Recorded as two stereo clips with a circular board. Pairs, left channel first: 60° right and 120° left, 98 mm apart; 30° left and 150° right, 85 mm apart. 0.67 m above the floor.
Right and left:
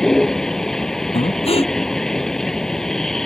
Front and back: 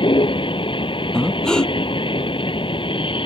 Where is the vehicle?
25° left.